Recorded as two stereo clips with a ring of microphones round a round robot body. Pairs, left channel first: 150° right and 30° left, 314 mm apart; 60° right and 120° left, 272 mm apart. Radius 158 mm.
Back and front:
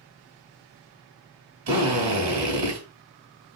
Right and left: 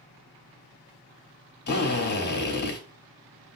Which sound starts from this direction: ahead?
A drill, at 1.7 s.